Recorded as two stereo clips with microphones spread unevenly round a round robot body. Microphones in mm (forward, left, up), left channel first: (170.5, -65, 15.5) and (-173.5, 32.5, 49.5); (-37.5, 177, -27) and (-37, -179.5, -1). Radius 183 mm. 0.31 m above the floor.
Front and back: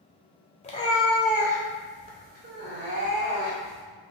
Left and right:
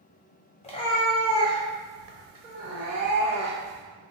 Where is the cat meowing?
35° left, 0.7 m; by 3.8 s 135° right, 1.6 m.